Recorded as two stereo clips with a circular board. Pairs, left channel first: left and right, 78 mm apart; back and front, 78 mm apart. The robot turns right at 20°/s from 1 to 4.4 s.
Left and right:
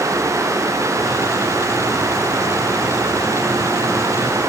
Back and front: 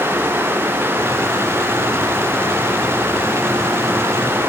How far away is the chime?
I don't hear a chime.